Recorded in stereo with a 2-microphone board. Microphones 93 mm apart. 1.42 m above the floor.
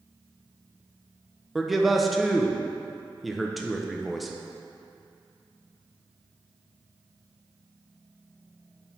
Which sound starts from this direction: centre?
A man speaking, at 1.6 s.